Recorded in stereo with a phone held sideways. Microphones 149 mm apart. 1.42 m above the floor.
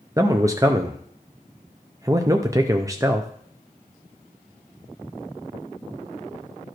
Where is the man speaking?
20° right (ahead or behind), 0.5 m.